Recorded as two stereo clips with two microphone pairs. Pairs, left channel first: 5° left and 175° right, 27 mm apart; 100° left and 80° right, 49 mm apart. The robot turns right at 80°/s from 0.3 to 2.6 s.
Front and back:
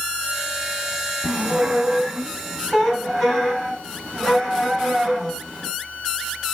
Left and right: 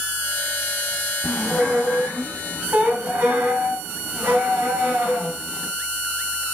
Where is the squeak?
175° left, 1.2 m; by 5.7 s 75° right, 1.2 m.